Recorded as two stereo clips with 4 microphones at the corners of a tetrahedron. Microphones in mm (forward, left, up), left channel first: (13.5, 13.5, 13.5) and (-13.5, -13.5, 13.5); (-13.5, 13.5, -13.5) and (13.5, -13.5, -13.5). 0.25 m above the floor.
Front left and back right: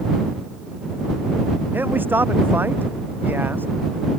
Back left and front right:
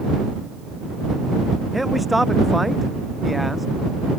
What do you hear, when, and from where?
1.7 s a man speaking: 135° right